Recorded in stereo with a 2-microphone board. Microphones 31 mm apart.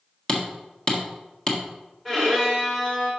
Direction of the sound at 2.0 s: 10° left (ahead or behind).